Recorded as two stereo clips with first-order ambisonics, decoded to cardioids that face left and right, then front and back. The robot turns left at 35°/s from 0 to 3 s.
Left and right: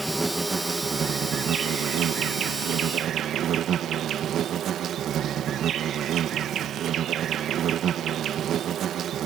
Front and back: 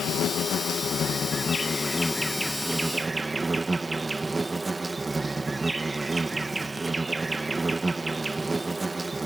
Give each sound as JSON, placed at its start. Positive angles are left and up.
{"t": 0.0, "sound": "an insect", "azimuth_deg": -5}